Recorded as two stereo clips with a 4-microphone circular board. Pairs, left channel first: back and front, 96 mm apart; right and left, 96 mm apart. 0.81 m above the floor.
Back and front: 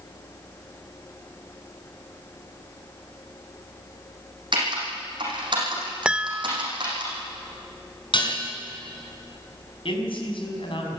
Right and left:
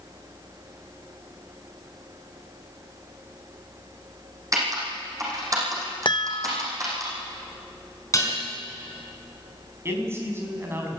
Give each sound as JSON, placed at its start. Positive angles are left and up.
{"t": 4.5, "sound": "typing on a keyboard", "azimuth_deg": 35, "distance_m": 7.0}
{"t": 6.0, "sound": "a chime", "azimuth_deg": -80, "distance_m": 0.6}
{"t": 8.1, "sound": "dishes clattering", "azimuth_deg": -145, "distance_m": 4.5}
{"t": 9.8, "sound": "a man speaking", "azimuth_deg": 155, "distance_m": 5.5}